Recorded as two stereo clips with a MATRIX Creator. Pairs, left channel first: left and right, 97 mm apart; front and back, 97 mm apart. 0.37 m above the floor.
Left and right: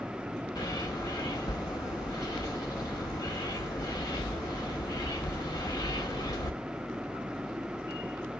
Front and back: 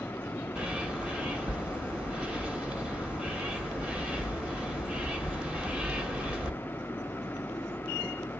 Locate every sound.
0.6 s a bird: 110° left, 1.2 m